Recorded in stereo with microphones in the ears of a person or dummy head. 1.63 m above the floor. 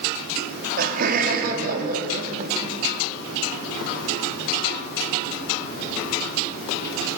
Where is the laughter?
50° right (ahead or behind), 4 m.